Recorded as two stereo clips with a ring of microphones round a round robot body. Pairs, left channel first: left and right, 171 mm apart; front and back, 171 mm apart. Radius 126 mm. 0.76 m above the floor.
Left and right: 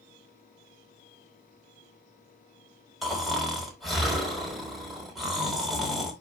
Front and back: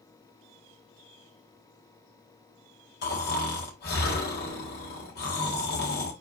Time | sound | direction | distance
3.0 | snoring | straight ahead | 4 m